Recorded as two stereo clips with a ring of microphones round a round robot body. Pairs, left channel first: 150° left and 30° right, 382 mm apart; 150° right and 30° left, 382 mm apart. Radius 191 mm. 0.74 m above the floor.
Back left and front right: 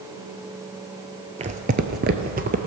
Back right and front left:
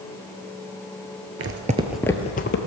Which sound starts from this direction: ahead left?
Footsteps, at 1.4 s.